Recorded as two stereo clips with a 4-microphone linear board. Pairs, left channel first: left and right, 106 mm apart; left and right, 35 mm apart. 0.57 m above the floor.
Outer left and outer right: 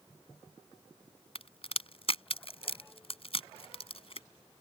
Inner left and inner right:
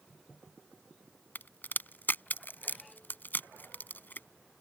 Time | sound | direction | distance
1.4 | a crack | 65° left (ahead or behind) | ?